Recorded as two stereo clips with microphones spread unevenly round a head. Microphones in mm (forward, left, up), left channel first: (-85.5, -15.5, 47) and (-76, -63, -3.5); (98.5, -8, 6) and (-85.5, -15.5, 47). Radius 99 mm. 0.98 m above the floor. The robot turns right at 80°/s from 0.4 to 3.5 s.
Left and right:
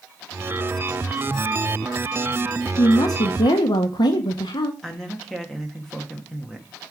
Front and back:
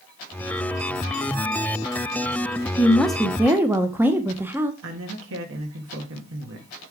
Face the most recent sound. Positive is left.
turn(degrees=-160)